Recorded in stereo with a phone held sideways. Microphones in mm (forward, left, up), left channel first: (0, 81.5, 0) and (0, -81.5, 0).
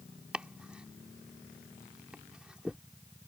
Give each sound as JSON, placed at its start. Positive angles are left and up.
{"t": 0.3, "sound": "chopping", "side_deg": -5}